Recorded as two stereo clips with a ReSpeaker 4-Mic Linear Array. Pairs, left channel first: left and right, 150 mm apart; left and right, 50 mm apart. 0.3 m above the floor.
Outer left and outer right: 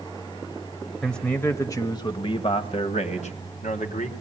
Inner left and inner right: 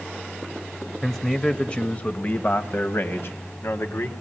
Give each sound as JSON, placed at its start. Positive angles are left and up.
{"t": 1.0, "sound": "a man speaking", "side_deg": 5, "distance_m": 1.0}